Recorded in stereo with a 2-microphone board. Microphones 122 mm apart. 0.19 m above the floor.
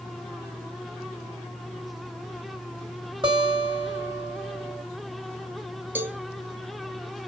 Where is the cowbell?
15° right (ahead or behind), 0.7 m.